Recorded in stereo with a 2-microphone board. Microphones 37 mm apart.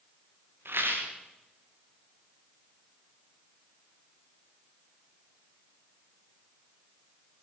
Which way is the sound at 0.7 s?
80° right.